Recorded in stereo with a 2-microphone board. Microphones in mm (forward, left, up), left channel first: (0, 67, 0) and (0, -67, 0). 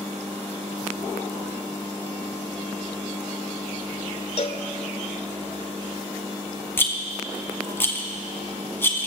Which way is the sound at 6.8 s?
15° left (ahead or behind).